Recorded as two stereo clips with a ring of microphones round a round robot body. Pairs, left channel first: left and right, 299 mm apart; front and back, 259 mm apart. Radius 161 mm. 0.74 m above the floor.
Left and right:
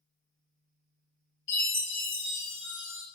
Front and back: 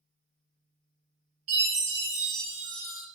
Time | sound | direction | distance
1.5 | a chime | 145° left | 1.2 m